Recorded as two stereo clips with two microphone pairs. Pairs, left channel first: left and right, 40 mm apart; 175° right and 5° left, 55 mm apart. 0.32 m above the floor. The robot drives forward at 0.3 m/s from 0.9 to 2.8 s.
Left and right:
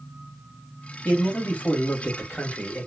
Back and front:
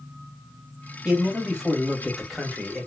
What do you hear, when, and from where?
1.1 s a man speaking: 70° left, 1.4 m; by 2.9 s 95° left, 1.4 m